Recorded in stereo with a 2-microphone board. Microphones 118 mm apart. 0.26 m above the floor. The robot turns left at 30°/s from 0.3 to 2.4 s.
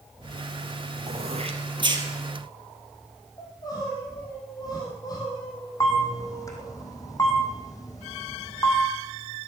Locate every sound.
1.1 s throat clearing: 65° right (ahead or behind), 2.5 m; by 2.1 s 35° right (ahead or behind), 2.5 m
3.4 s crying: 35° left (ahead or behind), 6 m
5.8 s a camera shutter: 30° left (ahead or behind), 3 m